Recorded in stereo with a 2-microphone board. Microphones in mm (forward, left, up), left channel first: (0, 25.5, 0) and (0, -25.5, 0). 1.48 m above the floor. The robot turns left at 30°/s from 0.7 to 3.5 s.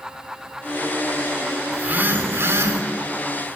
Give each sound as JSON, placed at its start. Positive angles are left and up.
{"t": 1.7, "sound": "a phone buzzing", "azimuth_deg": -35, "distance_m": 3.5}